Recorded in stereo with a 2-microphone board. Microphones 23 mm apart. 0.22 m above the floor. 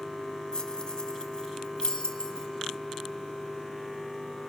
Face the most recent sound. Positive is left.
turn(degrees=40)  # may be behind; listen again after turning